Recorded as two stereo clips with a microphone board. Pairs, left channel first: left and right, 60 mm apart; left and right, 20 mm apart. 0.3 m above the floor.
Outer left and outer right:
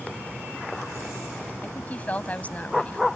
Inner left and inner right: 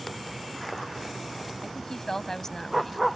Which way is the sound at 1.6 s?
25° left (ahead or behind).